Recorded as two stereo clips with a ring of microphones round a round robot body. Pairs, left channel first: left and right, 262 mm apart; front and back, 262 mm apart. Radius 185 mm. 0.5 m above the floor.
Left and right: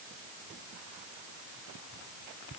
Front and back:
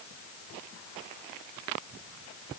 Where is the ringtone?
I don't hear a ringtone.